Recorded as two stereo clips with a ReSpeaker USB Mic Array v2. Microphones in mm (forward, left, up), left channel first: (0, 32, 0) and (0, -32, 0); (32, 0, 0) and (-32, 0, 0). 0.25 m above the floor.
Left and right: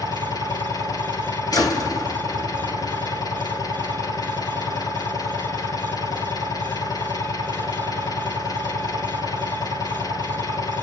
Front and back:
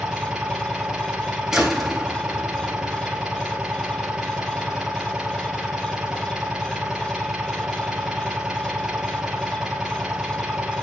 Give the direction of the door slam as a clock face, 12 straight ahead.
9 o'clock.